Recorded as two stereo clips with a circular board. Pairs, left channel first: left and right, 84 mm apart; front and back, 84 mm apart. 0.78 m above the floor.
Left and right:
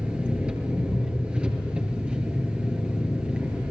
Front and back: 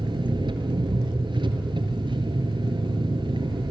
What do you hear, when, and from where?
0.0 s an engine running: 165° right, 4 m